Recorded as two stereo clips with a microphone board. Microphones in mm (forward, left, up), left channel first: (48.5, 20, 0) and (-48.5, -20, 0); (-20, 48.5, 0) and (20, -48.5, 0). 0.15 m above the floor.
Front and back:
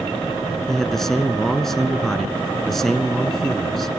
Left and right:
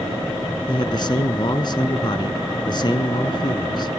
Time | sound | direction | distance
0.7 | a man speaking | 105° left | 1.5 m